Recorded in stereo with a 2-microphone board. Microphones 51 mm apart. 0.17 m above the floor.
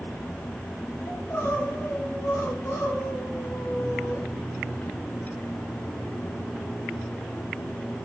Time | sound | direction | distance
1.1 | crying | 80° left | 6 m